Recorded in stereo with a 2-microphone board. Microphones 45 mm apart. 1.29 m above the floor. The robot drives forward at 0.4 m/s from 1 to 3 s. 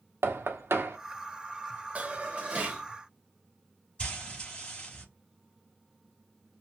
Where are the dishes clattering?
30° right (ahead or behind), 1.4 m; by 2.8 s 25° right (ahead or behind), 1.7 m.